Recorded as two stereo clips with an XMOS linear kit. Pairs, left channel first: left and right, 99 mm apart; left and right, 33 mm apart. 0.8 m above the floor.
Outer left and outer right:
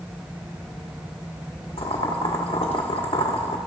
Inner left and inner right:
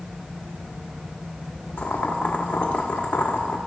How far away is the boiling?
About 1.5 m.